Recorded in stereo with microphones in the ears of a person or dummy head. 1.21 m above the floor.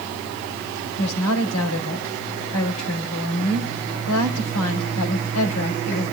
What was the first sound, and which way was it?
A woman speaking, 85° left.